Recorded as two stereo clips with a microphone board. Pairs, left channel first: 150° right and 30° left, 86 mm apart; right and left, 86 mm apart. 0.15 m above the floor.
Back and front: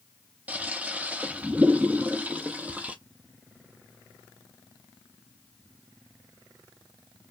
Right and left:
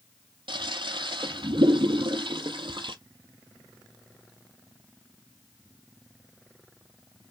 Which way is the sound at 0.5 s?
100° left.